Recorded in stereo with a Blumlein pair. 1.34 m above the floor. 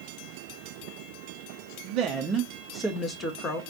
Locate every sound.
1.8 s a woman speaking: 45° right, 0.8 m; by 3.6 s 30° left, 1.1 m